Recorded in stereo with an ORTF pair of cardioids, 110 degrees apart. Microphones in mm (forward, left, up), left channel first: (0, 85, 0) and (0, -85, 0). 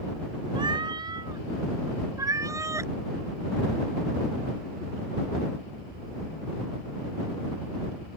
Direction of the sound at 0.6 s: 25° right.